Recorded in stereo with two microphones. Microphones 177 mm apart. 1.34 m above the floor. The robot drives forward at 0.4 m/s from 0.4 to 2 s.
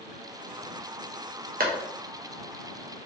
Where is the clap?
55° right (ahead or behind), 0.7 m; by 3.1 s 50° right (ahead or behind), 0.8 m.